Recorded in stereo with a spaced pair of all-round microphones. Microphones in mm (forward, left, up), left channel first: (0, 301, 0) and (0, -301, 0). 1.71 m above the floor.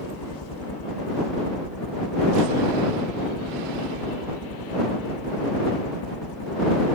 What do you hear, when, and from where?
0.0 s a helicopter: 40° left (ahead or behind)